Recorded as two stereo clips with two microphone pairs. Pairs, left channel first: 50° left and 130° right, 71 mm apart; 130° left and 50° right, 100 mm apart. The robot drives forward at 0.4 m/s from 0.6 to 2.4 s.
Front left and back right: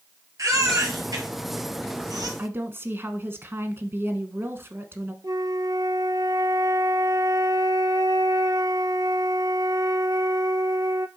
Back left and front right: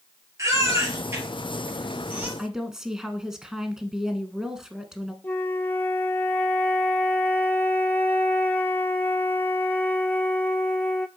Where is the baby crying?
105° right, 2 m; by 2.3 s 120° right, 2.5 m.